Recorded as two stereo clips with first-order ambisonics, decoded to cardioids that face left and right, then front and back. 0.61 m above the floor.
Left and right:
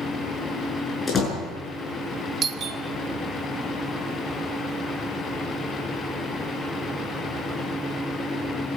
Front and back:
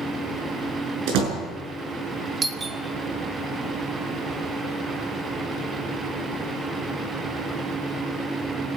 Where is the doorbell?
125° right, 1.4 m.